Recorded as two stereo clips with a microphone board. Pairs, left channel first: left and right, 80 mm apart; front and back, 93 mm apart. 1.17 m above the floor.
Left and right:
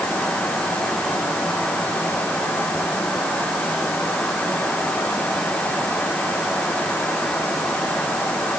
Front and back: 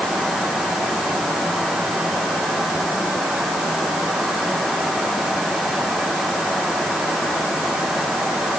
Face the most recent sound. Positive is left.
No sound to turn to.